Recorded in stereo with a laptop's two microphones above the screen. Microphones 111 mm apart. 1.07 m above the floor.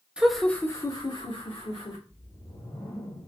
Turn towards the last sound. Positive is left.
turn(degrees=50)  # may be behind; listen again after turning